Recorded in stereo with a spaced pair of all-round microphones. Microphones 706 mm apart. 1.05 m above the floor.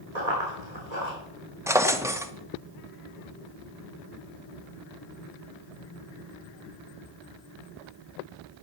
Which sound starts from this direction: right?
Running footsteps, at 0.1 s.